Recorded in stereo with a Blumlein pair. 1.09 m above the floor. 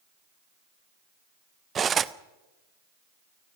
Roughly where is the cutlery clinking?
Ahead.